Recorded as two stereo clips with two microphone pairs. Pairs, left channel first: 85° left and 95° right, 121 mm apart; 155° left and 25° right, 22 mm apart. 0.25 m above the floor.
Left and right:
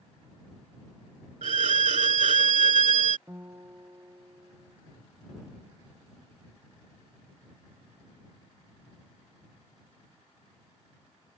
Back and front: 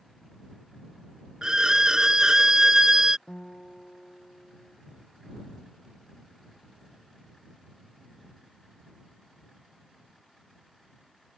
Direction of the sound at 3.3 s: 160° right.